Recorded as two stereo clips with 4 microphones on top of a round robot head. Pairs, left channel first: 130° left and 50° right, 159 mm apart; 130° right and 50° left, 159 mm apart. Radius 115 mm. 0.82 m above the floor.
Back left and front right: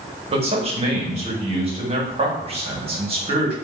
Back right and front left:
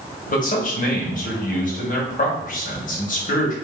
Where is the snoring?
No snoring in this recording.